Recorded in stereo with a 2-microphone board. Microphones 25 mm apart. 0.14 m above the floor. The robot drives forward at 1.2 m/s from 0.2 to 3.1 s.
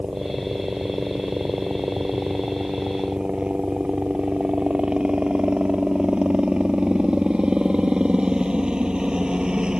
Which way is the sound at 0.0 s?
45° right (ahead or behind).